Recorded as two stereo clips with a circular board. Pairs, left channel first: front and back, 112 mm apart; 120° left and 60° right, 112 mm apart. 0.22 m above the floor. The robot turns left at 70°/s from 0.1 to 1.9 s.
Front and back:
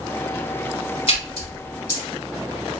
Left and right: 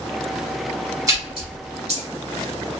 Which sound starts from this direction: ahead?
A splash, at 1.1 s.